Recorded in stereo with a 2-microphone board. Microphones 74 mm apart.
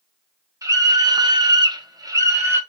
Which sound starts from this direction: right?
A scream, at 0.6 s.